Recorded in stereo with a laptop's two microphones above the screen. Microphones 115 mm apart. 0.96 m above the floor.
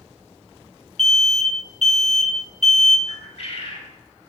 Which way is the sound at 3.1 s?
55° left (ahead or behind).